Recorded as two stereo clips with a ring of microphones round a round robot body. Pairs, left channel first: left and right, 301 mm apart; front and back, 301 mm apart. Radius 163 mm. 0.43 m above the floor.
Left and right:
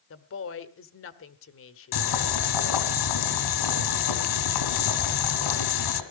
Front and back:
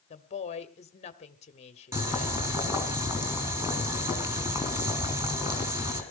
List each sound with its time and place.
0.1 s a woman speaking: 60° left, 1.0 m
1.9 s boiling: 95° left, 2.5 m